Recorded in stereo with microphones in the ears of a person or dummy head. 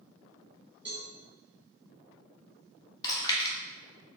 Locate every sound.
0.8 s a cowbell: 10° right (ahead or behind), 1.4 m
3.0 s chewing: 25° left (ahead or behind), 1.0 m